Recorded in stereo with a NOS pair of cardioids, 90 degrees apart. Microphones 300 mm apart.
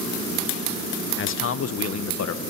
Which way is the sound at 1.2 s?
40° left.